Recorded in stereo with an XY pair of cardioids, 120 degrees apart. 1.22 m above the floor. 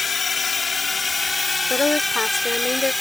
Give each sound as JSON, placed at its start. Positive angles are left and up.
{"t": 0.0, "sound": "a drone", "azimuth_deg": 30}
{"t": 1.7, "sound": "a woman speaking", "azimuth_deg": 20}